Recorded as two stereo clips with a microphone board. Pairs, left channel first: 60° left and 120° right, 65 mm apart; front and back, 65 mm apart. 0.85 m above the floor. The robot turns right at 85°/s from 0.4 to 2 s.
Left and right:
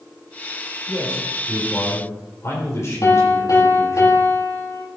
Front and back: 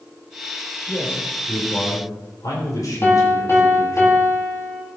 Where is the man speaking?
75° right, 3.5 m; by 4.0 s 20° left, 3.5 m.